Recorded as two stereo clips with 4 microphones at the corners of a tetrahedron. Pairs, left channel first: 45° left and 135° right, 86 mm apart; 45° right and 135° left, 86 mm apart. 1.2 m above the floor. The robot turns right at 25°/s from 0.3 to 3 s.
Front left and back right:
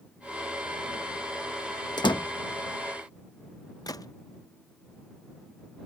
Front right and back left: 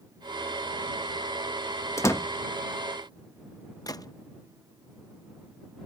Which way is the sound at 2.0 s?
10° left.